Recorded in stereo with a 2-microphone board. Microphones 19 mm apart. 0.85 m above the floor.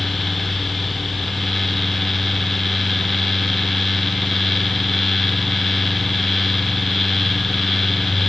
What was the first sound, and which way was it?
Only background noise.